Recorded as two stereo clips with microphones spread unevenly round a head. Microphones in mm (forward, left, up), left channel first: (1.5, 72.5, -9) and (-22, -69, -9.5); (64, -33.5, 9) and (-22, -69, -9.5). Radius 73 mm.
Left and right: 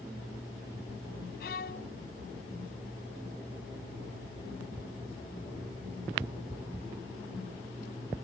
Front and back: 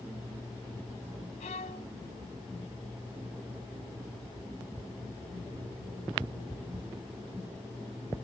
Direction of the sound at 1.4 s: 50° left.